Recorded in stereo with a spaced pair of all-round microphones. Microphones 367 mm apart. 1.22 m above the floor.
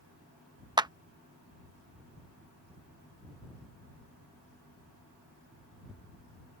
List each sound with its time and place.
0.8 s a clap: 10° right (ahead or behind)